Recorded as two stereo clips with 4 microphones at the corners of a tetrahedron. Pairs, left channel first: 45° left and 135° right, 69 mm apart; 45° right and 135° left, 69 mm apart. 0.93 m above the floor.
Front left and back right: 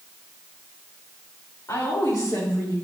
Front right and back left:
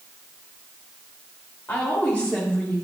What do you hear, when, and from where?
1.7 s a woman speaking: 15° left, 3.5 m; by 2.8 s 35° left, 4.5 m